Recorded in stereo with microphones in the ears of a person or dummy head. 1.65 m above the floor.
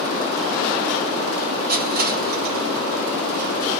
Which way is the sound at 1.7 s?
60° right (ahead or behind).